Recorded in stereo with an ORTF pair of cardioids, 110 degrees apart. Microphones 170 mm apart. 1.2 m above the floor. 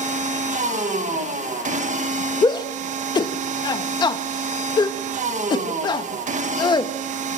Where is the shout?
25° left, 1.5 m.